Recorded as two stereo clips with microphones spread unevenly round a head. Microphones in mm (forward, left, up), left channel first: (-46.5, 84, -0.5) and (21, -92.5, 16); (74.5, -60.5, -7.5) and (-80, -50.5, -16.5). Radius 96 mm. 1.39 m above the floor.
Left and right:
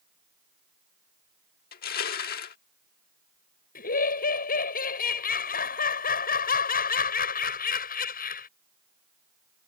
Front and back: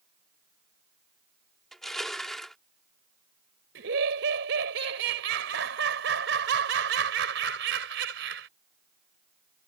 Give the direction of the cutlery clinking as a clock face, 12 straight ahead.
No cutlery clinking in this recording.